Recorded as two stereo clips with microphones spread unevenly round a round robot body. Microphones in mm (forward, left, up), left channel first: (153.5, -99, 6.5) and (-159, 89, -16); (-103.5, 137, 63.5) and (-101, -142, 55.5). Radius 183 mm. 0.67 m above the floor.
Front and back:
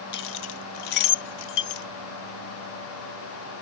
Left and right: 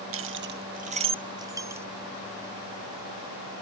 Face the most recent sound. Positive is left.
turn(degrees=-5)